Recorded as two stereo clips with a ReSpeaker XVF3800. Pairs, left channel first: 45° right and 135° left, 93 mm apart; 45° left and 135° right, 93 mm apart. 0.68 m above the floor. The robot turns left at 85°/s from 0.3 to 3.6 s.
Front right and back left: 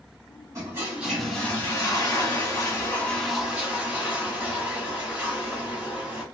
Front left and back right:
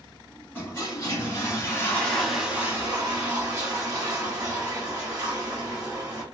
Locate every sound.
0.6 s a toilet flushing: 100° left, 1.3 m; by 6.2 s 160° right, 1.3 m